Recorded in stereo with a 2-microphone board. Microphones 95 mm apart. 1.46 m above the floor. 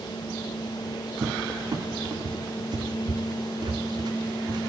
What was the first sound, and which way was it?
A cupboard door, 50° right (ahead or behind).